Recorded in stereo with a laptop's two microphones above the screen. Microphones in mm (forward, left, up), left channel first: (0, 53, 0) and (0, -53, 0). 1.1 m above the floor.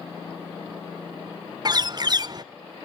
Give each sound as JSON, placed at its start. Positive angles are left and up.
{"t": 1.6, "sound": "a bird", "side_deg": -40, "distance_m": 0.5}